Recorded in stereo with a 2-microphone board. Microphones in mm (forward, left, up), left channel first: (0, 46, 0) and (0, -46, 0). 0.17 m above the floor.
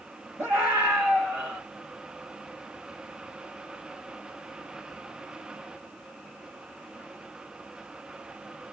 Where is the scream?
25° left (ahead or behind), 4 m; by 1.6 s 15° left (ahead or behind), 4 m.